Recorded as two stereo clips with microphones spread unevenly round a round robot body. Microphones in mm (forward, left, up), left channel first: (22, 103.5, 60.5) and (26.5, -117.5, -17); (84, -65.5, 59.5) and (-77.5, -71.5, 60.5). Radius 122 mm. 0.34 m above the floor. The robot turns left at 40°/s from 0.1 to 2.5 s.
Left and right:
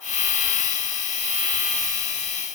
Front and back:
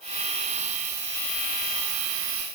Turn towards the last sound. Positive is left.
No sound to turn to.